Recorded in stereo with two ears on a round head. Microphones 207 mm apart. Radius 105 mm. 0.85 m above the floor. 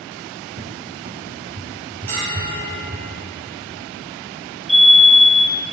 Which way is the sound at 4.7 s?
Centre (ahead or behind).